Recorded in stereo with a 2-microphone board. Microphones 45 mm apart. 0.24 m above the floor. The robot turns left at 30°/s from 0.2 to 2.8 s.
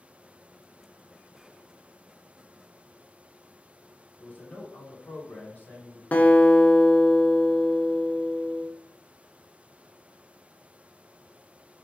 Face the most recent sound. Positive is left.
turn(degrees=40)  # may be behind; listen again after turning